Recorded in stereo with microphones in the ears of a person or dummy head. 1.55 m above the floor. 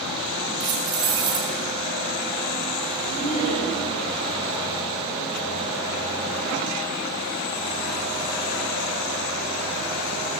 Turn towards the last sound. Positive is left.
turn(degrees=45)  # may be behind; listen again after turning